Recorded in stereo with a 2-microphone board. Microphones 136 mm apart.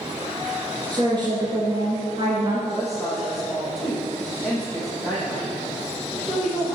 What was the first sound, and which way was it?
A woman speaking, 35° right (ahead or behind).